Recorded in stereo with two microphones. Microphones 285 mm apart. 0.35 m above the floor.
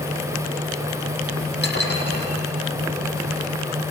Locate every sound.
1.6 s dishes clattering: 35° left (ahead or behind), 8 m